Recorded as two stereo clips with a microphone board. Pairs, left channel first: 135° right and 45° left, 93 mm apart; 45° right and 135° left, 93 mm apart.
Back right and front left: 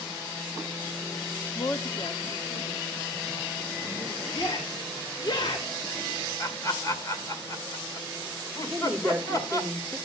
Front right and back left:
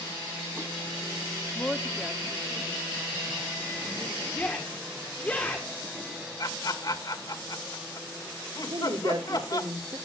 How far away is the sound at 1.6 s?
About 0.7 m.